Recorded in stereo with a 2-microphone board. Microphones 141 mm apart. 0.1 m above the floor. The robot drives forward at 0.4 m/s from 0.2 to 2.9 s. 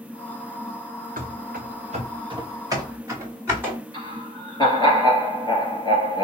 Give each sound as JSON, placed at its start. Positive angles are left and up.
{"t": 1.2, "sound": "running footsteps", "side_deg": -70, "distance_m": 1.0}
{"t": 3.9, "sound": "laughter", "side_deg": 30, "distance_m": 1.9}